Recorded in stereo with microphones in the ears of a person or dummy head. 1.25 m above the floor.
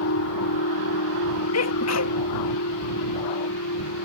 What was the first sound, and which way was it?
A machine running, 85° left.